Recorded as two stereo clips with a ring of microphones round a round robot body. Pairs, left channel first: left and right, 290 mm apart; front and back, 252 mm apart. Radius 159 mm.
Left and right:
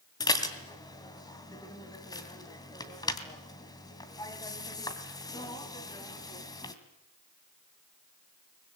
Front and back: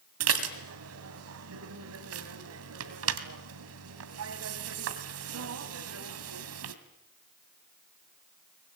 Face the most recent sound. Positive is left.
turn(degrees=165)